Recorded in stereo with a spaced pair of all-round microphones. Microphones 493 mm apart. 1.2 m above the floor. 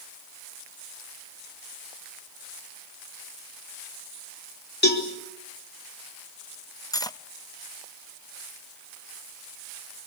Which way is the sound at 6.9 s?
10° left (ahead or behind).